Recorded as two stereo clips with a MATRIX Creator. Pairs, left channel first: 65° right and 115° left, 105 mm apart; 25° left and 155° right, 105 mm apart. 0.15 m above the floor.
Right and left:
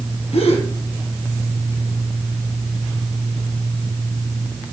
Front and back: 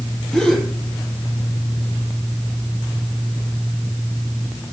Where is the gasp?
60° right, 4 m.